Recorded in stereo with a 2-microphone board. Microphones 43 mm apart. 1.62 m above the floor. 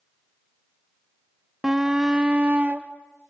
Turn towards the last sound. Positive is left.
turn(degrees=-35)  # may be behind; listen again after turning